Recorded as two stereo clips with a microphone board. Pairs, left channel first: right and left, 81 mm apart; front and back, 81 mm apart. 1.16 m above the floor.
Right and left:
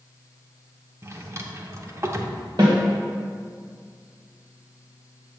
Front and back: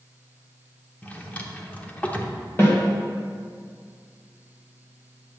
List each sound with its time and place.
1.0 s a drawer: 60° left, 0.9 m
2.6 s a snare drum: 60° left, 1.9 m